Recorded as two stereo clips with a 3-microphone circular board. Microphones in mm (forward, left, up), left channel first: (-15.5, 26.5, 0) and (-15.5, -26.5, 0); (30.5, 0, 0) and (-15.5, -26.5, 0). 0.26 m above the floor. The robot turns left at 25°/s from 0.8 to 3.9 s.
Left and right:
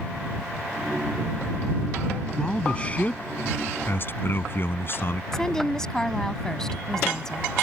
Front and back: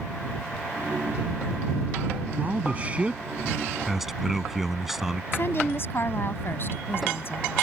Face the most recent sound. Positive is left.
turn(degrees=15)